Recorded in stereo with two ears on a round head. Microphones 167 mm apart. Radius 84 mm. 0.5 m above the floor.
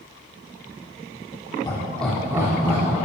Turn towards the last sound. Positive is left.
turn(degrees=-40)  # may be behind; listen again after turning